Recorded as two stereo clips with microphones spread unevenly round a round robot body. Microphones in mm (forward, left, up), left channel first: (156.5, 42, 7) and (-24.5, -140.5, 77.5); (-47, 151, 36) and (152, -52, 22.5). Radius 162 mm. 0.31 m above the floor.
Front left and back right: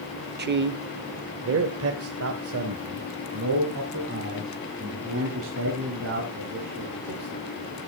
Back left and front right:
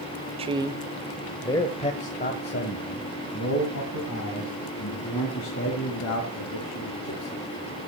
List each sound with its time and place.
0.4 s a man speaking: 90° right, 1.0 m; by 7.4 s 170° left, 4 m